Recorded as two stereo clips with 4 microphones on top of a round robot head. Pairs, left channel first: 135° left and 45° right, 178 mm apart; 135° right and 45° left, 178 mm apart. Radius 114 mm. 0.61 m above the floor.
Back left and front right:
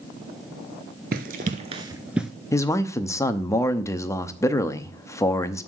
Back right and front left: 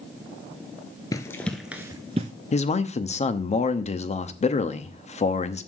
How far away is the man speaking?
About 0.9 m.